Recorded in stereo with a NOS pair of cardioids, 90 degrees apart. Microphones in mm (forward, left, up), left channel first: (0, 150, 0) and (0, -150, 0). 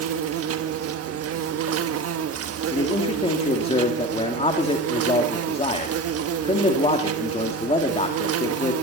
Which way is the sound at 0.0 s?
50° right.